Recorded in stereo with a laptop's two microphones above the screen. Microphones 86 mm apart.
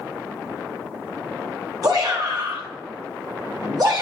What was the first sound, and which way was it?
A shout, 45° right (ahead or behind).